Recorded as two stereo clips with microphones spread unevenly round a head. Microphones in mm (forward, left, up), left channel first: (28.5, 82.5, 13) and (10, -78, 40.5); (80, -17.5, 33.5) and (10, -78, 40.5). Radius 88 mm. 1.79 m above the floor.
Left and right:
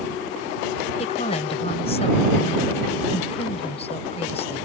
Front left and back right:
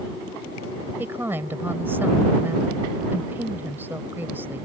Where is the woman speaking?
145° left.